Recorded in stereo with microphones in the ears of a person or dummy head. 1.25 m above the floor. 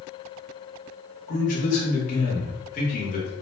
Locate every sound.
1.3 s a man speaking: 40° left (ahead or behind), 1.1 m